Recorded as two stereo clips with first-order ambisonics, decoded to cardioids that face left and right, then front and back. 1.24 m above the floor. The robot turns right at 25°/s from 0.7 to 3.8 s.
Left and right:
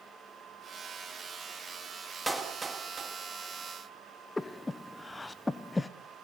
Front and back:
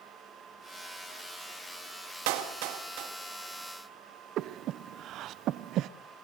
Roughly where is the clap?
Behind.